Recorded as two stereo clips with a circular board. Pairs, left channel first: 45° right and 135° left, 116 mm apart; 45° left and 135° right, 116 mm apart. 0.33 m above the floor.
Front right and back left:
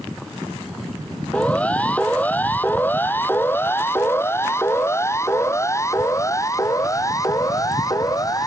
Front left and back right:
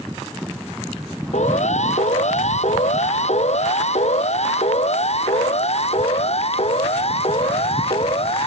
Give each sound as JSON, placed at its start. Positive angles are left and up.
{"t": 1.3, "sound": "a siren", "azimuth_deg": 35}